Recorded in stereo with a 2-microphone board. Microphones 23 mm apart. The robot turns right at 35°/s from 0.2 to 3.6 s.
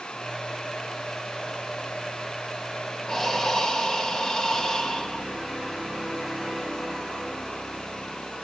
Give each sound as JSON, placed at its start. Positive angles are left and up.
{"t": 3.1, "sound": "breathing", "side_deg": 15, "distance_m": 1.0}